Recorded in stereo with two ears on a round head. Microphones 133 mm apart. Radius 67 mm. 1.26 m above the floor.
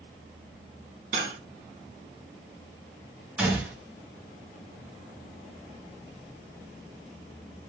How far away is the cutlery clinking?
About 1.3 m.